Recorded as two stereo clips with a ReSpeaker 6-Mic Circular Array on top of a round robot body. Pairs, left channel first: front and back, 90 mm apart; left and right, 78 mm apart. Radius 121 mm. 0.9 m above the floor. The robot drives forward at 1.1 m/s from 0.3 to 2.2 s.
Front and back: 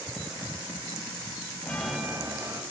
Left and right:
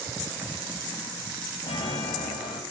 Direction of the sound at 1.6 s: 70° left.